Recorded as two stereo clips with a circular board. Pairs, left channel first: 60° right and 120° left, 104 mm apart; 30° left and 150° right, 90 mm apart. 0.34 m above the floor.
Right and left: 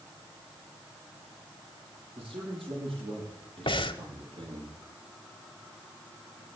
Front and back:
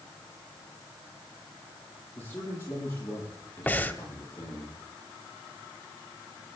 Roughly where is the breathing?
Ahead right.